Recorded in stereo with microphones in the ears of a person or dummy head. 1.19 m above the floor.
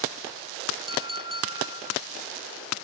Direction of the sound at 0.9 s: 30° right (ahead or behind).